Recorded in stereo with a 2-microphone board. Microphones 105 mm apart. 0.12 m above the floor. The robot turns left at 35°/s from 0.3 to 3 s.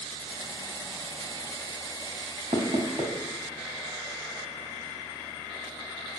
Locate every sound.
2.5 s knocking: 70° right (ahead or behind), 2.5 m; by 3.1 s 65° right (ahead or behind), 2.5 m